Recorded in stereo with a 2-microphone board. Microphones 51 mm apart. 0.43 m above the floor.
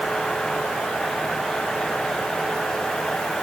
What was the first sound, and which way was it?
Only background noise.